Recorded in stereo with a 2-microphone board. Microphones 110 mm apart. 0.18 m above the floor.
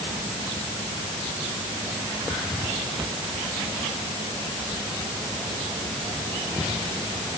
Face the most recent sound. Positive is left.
No sound to turn to.